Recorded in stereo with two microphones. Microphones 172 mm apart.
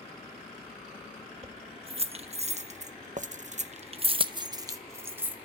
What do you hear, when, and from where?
1.4 s keys jangling: 30° right (ahead or behind), 1.7 m; by 5.5 s 10° right (ahead or behind), 1.5 m